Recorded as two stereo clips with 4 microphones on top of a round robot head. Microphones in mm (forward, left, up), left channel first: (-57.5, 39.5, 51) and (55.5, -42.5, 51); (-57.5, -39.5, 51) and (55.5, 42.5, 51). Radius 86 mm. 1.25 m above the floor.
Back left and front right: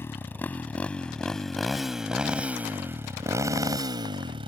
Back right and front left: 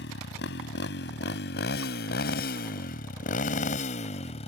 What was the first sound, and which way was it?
A motorcycle, 140° right.